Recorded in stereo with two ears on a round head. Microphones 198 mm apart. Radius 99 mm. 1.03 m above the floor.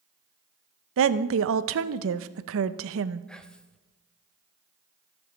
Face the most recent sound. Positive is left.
turn(degrees=5)  # may be behind; listen again after turning